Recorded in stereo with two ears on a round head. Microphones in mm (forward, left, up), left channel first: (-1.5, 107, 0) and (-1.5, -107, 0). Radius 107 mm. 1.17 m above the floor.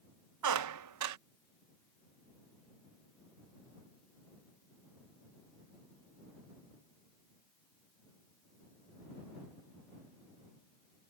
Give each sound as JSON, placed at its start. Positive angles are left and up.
{"t": 0.4, "sound": "a squeak", "side_deg": -80}